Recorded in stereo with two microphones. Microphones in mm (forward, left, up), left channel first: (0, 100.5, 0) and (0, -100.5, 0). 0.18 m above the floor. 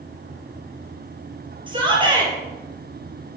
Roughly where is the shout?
Right.